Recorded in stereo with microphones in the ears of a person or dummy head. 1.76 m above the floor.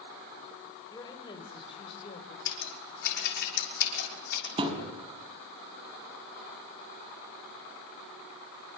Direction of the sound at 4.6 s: 25° right (ahead or behind).